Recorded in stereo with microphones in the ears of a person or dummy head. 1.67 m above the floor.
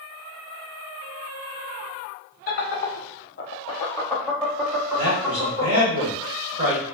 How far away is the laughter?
About 0.7 m.